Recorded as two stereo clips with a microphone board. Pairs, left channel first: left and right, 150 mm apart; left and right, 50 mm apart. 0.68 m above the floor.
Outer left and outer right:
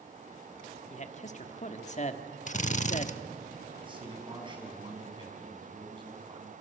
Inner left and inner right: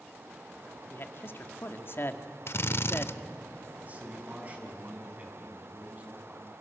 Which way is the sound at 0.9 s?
50° left (ahead or behind).